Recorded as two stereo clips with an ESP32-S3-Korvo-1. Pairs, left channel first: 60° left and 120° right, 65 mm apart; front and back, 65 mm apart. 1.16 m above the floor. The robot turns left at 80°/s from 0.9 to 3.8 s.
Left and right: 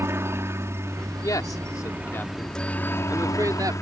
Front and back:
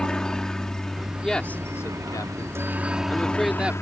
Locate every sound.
0.0 s a helicopter: 80° right; by 3.8 s 30° left
1.2 s a man speaking: 85° left; by 3.7 s 115° right